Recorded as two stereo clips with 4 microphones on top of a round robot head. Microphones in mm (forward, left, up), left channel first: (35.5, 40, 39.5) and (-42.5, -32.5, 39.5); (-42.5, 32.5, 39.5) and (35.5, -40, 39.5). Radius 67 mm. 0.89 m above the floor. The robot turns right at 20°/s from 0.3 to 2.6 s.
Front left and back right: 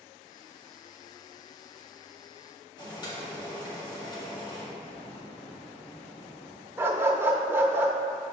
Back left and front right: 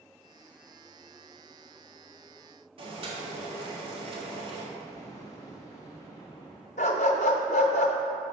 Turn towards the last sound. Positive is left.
turn(degrees=150)